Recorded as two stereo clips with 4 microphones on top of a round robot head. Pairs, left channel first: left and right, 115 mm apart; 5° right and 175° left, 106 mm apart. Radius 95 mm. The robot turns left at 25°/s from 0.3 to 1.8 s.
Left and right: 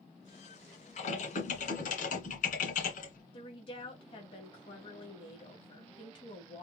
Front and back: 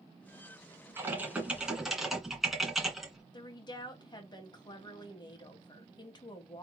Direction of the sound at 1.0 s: 105° left.